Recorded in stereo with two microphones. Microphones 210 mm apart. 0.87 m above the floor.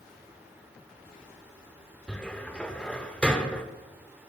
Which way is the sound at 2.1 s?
5° left (ahead or behind).